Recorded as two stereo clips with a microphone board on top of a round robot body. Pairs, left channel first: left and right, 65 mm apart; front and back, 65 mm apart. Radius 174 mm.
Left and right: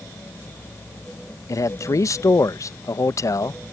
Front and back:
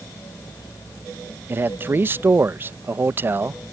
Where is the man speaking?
125° left.